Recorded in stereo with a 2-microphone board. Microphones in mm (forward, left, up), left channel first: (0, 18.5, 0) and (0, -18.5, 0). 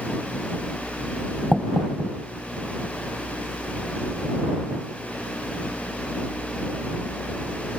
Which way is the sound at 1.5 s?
Centre (ahead or behind).